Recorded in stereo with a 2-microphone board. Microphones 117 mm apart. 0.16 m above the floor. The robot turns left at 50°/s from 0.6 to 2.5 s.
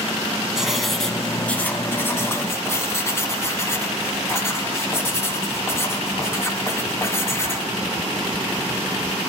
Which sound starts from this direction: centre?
Writing, at 0.6 s.